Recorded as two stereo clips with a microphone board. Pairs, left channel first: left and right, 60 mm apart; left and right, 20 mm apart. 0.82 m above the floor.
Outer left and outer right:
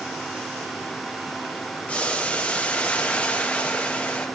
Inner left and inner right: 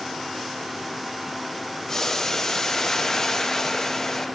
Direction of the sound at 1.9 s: 20° left (ahead or behind).